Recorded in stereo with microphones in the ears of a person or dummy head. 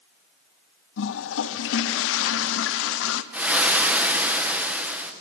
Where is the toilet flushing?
80° left, 0.8 m.